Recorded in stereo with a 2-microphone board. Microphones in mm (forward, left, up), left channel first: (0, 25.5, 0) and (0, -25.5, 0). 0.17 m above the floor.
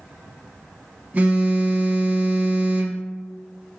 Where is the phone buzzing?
30° right (ahead or behind), 0.7 m.